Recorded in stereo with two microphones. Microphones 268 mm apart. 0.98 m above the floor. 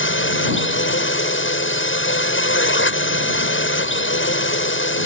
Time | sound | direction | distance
0.0 | a drone | 45° left (ahead or behind) | ?